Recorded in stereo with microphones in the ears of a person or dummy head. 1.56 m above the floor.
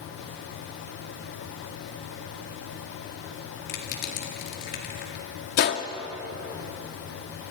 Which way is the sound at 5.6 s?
50° left (ahead or behind).